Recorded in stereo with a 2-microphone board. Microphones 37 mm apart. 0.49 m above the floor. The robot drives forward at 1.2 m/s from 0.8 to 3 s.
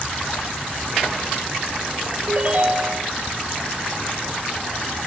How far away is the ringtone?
About 1.9 m.